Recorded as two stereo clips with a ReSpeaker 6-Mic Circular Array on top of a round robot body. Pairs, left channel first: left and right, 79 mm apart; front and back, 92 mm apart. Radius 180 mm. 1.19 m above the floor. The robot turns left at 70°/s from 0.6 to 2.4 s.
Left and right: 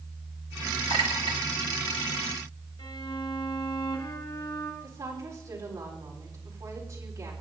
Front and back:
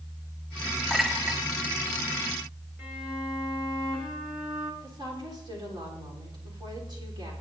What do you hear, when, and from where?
0.9 s a clink: 85° right, 1.3 m; by 1.4 s 120° right, 1.3 m
2.8 s a violin: 95° left, 3 m
4.8 s a woman speaking: 140° right, 4 m